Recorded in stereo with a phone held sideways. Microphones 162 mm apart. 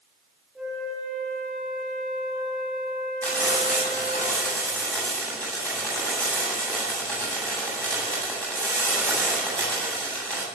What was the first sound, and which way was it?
A flute, 5° right (ahead or behind).